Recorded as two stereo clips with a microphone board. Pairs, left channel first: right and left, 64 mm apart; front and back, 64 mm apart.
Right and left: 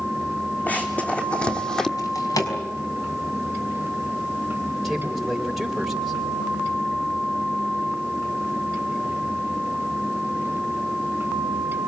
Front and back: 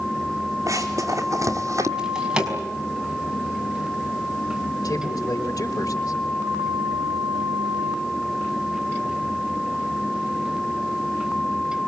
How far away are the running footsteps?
About 3 m.